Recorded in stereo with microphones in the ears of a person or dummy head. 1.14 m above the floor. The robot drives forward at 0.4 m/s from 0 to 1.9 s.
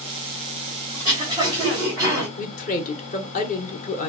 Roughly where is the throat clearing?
Right.